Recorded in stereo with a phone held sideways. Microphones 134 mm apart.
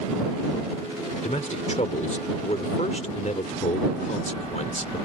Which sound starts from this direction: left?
A man speaking, at 1.2 s.